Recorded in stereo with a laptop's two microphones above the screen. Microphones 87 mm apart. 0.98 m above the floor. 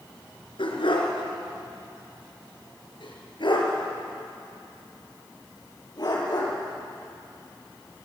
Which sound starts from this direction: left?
A dog barking, at 0.6 s.